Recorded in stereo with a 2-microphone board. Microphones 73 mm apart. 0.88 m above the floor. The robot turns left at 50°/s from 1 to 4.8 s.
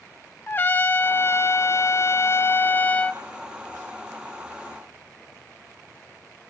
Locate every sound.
0.5 s a trumpet: 135° left, 0.6 m; by 3.2 s 25° left, 0.6 m